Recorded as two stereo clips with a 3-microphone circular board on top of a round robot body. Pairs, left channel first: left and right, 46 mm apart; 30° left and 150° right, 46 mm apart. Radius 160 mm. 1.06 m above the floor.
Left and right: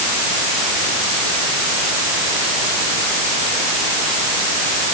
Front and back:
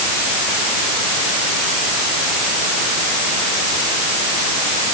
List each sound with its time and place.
Only background noise.